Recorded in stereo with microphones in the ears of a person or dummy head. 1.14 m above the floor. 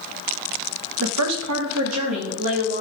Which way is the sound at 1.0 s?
70° right (ahead or behind).